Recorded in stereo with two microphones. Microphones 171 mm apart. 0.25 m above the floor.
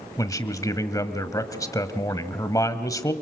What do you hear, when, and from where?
0.2 s a man speaking: 20° left (ahead or behind), 1.4 m